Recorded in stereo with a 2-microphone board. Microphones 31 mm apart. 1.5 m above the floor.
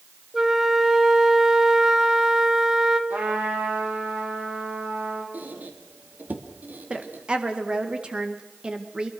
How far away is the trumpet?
About 6 m.